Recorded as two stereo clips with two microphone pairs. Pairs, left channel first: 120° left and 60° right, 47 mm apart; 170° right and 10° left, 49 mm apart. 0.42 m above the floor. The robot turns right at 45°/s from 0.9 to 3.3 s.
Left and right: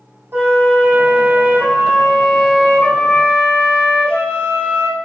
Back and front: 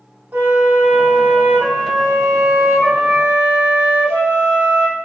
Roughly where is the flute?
Ahead right.